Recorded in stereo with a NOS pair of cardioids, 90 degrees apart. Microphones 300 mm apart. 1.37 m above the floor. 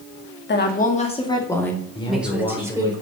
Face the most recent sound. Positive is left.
turn(degrees=15)